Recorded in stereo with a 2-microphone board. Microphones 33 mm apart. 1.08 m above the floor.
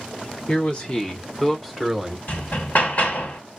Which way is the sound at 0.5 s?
40° left (ahead or behind).